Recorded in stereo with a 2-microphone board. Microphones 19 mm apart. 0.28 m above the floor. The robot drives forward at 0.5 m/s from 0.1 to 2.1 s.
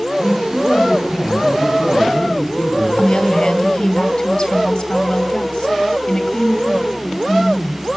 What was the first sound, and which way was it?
A man speaking, 60° left (ahead or behind).